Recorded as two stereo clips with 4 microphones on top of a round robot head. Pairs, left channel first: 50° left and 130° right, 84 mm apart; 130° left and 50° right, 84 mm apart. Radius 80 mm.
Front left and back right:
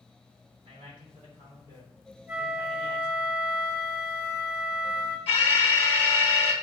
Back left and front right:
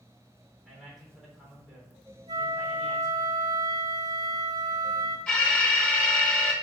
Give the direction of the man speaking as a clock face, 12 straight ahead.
5 o'clock.